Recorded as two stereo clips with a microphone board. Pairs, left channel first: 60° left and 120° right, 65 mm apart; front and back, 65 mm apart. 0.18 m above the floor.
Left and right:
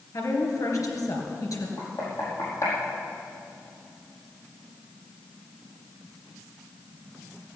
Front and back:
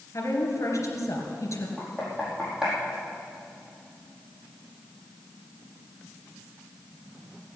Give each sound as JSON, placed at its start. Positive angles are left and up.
{"t": 0.1, "sound": "a woman speaking", "azimuth_deg": 35, "distance_m": 3.5}
{"t": 1.8, "sound": "knocking", "azimuth_deg": 105, "distance_m": 5.0}